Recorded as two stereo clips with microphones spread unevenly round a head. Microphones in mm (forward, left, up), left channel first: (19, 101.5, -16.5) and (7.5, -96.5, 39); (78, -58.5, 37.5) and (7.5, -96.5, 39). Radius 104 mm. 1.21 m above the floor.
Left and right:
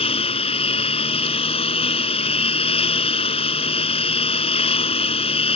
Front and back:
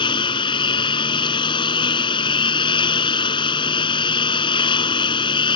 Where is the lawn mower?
20° left.